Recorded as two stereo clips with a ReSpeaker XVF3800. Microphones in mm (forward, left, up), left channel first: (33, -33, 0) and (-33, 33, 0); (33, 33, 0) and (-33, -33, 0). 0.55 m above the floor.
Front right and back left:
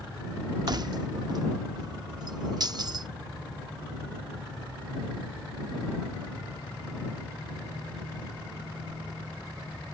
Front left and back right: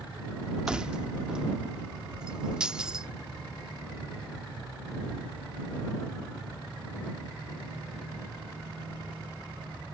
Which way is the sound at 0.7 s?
150° left.